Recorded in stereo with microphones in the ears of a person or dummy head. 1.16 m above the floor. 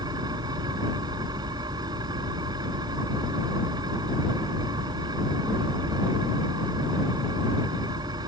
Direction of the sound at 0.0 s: 25° right (ahead or behind).